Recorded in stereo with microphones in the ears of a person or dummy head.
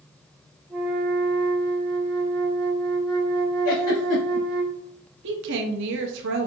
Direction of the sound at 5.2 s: 60° right (ahead or behind).